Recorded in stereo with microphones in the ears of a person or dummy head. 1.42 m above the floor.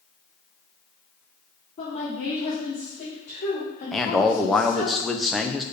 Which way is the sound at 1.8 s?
30° left (ahead or behind).